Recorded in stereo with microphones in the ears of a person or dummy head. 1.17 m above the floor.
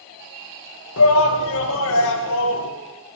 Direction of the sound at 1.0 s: 65° left (ahead or behind).